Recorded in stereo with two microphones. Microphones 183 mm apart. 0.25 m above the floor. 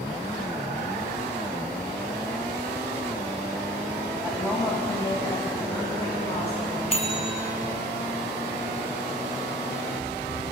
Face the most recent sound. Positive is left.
turn(degrees=35)  # may be behind; listen again after turning